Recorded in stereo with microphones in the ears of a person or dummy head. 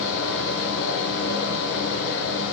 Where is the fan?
60° left (ahead or behind), 0.8 m.